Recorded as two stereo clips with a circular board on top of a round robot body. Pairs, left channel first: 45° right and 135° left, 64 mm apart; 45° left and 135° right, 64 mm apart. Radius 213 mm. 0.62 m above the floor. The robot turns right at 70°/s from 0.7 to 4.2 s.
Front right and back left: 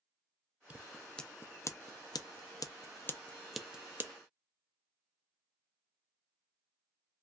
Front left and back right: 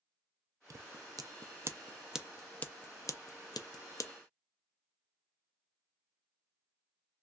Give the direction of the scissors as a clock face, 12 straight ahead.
5 o'clock.